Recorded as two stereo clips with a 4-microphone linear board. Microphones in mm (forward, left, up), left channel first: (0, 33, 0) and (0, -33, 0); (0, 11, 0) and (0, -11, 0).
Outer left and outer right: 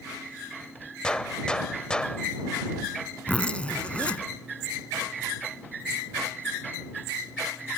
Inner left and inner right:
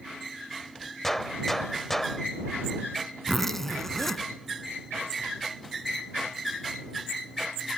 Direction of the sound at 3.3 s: 15° left (ahead or behind).